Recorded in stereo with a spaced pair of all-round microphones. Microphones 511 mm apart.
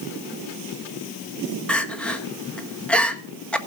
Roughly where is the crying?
Centre.